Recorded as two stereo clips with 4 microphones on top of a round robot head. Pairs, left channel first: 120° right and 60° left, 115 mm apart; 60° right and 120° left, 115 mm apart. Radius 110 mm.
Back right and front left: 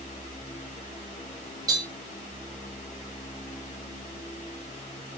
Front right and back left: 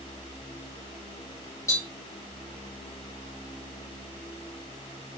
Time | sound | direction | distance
1.7 | tapping | 5° left | 3 m